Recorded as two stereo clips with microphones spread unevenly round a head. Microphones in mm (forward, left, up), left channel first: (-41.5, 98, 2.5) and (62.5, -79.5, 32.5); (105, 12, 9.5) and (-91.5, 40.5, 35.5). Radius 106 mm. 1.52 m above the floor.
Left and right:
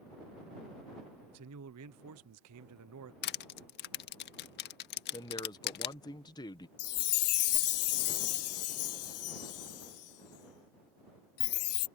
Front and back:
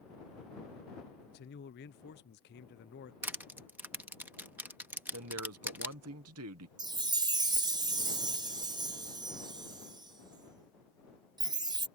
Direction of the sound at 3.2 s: 105° left.